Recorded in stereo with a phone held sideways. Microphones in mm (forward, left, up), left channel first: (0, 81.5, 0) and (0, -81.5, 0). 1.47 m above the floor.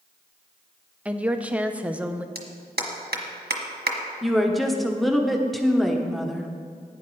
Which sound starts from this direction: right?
A clap, at 2.4 s.